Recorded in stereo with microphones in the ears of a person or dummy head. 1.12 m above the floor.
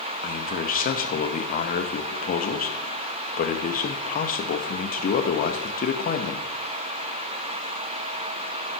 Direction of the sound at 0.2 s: 45° left (ahead or behind).